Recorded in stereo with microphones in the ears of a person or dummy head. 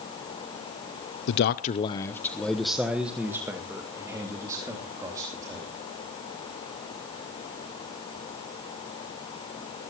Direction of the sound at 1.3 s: 65° left (ahead or behind).